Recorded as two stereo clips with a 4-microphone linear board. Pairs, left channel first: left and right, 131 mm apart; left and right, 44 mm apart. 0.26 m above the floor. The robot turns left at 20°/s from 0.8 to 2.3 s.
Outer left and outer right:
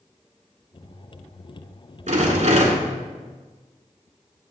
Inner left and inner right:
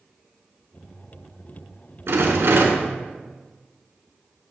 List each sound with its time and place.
2.1 s a rattle: 70° right (ahead or behind), 1.1 m; by 2.9 s 65° right (ahead or behind), 1.1 m